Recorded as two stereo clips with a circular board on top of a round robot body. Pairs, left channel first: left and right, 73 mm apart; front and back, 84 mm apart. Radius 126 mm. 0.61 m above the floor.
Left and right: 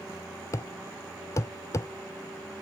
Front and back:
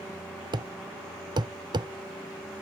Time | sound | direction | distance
0.5 | a thud | 145° left | ?